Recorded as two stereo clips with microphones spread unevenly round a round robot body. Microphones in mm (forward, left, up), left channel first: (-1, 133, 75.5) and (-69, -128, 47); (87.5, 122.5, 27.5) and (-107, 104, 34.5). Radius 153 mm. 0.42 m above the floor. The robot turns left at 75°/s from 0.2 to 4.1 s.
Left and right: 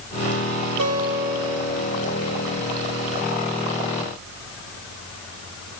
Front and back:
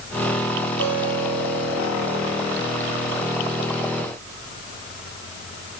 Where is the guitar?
125° right, 1.8 m; by 2.5 s 110° left, 1.8 m.